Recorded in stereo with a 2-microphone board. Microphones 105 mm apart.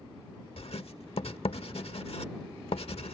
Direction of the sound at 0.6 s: 70° left (ahead or behind).